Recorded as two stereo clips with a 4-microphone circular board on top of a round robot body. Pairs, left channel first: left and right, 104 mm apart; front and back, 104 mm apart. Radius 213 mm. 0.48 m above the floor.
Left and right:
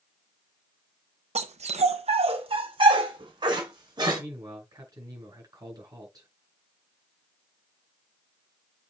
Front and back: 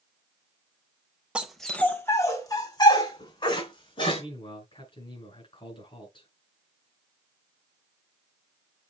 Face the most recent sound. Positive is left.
turn(degrees=-35)